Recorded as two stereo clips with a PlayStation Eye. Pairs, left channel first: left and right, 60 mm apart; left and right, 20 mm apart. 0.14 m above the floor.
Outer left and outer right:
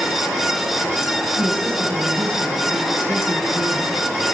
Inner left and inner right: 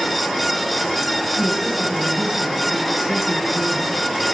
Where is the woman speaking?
40° right (ahead or behind), 5.5 m.